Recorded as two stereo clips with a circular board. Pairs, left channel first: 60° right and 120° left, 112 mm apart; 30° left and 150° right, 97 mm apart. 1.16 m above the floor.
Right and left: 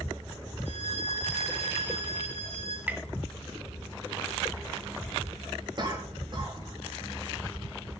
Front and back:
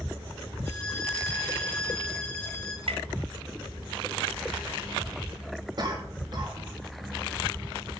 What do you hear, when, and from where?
0.7 s a violin: 40° right, 3 m
2.9 s tapping: 165° right, 0.8 m
5.8 s a cough: 170° left, 2.5 m